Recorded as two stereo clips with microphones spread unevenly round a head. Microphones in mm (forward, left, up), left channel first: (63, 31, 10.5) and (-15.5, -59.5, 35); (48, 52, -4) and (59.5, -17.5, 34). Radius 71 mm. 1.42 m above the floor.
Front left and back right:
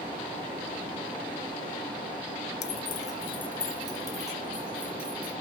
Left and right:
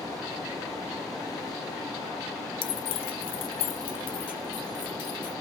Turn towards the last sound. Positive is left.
turn(degrees=150)